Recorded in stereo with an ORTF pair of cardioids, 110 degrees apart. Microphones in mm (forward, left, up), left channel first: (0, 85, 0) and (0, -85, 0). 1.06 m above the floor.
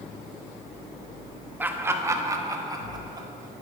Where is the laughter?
10° right, 1.1 m; by 3.3 s 25° right, 2 m.